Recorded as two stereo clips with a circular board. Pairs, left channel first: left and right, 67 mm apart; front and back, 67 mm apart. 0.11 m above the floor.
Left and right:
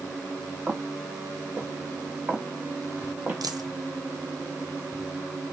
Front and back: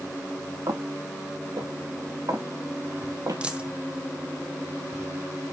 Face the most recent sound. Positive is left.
turn(degrees=-105)